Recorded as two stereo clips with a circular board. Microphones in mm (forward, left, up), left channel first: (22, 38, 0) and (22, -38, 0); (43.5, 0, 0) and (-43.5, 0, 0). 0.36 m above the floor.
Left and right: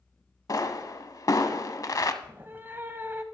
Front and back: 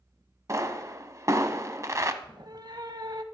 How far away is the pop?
About 0.7 m.